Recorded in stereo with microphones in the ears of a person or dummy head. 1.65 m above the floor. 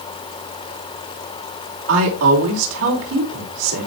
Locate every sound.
1.9 s a woman speaking: 85° right, 4.5 m